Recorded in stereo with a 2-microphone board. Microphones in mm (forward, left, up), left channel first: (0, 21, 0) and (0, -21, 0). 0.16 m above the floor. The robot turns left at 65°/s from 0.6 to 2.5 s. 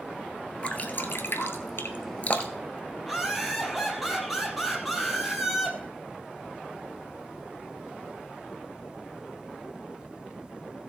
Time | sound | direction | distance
0.6 | dripping | 30° left (ahead or behind) | 1.2 m
3.0 | laughter | 5° right (ahead or behind) | 4 m